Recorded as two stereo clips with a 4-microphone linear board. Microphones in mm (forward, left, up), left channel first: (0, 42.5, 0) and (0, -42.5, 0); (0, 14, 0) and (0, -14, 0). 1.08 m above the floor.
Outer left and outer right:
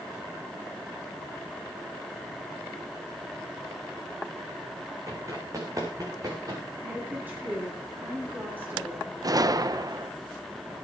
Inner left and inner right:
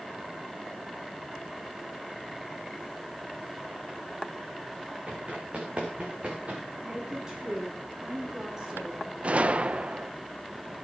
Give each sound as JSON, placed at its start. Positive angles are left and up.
{"t": 5.1, "sound": "running footsteps", "side_deg": -40, "distance_m": 4.5}
{"t": 6.8, "sound": "a woman speaking", "side_deg": -20, "distance_m": 8.0}
{"t": 9.2, "sound": "a gunshot", "side_deg": -50, "distance_m": 0.7}